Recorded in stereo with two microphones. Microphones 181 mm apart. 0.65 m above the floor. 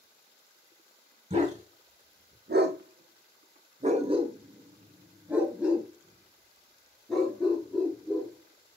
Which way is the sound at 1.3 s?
35° right (ahead or behind).